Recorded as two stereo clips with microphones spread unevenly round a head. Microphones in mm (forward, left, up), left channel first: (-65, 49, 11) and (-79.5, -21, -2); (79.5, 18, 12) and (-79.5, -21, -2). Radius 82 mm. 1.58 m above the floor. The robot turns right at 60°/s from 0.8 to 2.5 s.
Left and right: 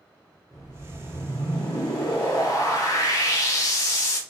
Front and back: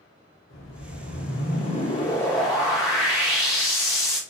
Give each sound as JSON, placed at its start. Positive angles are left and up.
{"t": 0.5, "sound": "a whoosh", "azimuth_deg": 5, "distance_m": 1.0}